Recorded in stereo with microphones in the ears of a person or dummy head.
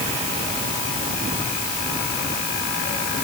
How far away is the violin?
I don't hear a violin.